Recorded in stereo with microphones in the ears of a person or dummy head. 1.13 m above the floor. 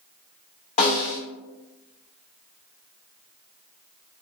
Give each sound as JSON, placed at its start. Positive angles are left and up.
{"t": 0.8, "sound": "a snare drum", "side_deg": 45, "distance_m": 1.3}